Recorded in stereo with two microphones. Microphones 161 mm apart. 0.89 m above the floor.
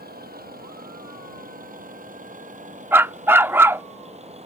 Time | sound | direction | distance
0.0 | a vehicle | 70° right (ahead or behind) | ?
2.9 | a dog barking | 15° right (ahead or behind) | ?